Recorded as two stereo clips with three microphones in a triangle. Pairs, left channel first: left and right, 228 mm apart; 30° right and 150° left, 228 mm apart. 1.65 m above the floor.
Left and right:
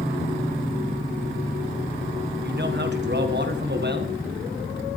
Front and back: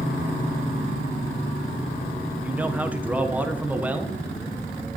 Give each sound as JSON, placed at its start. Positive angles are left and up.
{"t": 2.4, "sound": "a man speaking", "azimuth_deg": -125, "distance_m": 1.4}